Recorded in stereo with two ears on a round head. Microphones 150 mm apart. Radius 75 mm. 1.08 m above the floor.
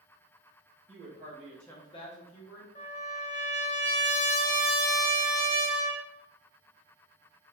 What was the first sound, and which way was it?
A woman speaking, 35° right (ahead or behind).